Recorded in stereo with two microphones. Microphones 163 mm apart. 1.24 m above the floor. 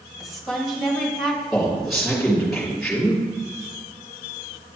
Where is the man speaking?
Centre (ahead or behind), 3 m.